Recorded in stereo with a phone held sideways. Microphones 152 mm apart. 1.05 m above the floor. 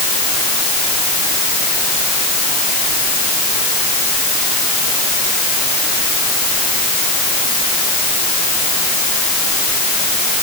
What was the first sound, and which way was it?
Only background noise.